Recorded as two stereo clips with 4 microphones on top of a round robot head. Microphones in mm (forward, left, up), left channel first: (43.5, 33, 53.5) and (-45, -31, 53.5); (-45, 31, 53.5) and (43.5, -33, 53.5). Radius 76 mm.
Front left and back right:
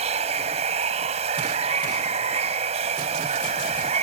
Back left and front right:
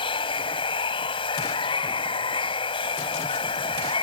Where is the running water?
175° right.